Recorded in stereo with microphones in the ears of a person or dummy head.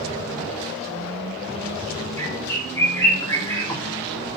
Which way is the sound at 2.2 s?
10° left (ahead or behind).